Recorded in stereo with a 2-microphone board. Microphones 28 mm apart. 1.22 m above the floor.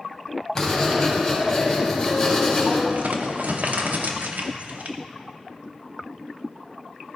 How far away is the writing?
About 2.5 m.